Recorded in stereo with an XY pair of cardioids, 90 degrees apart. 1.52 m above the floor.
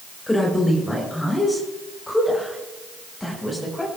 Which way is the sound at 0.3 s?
15° left.